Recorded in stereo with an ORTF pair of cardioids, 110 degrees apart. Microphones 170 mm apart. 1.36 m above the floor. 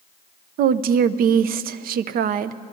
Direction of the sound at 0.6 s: 60° right.